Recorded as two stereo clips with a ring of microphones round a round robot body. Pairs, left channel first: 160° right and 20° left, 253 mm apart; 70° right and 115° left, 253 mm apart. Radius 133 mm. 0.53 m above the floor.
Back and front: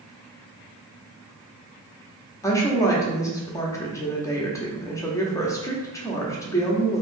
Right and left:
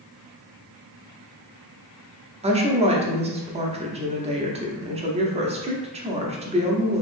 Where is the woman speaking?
140° left, 0.8 m.